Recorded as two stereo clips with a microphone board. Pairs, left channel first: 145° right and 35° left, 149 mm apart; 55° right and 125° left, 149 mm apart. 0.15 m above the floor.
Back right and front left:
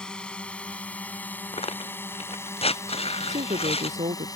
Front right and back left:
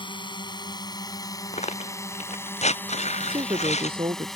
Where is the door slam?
No door slam in this recording.